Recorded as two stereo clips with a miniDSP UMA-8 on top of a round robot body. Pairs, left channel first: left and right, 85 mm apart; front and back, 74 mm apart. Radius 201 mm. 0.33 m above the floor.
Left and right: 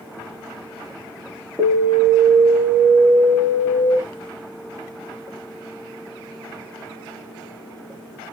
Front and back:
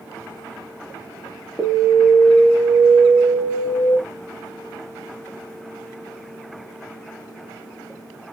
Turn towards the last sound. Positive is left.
turn(degrees=25)